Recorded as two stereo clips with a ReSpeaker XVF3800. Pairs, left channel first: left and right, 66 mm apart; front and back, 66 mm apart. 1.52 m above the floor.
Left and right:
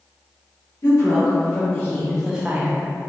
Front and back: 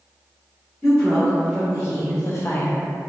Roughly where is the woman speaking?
Ahead left.